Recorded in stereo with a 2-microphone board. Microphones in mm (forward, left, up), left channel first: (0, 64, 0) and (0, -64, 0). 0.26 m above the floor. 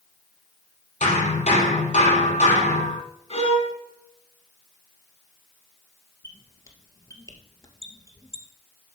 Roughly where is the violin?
Left.